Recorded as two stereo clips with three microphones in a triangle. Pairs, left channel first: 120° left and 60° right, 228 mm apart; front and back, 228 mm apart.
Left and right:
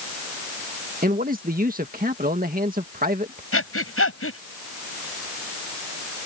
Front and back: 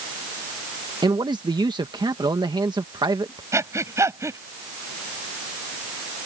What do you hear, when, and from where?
1.0 s a man speaking: 110° right
3.5 s breathing: 105° left